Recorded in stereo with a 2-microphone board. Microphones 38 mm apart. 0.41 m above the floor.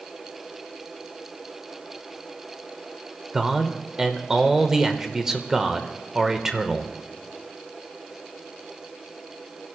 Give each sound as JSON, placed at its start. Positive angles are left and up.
{"t": 3.3, "sound": "a man speaking", "side_deg": -15, "distance_m": 1.2}